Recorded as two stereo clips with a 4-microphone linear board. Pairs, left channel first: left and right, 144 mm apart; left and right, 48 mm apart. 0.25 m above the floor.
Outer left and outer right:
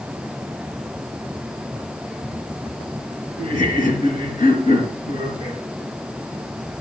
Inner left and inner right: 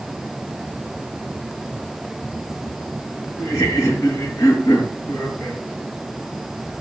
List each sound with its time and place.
3.4 s laughter: 70° left (ahead or behind), 4.5 m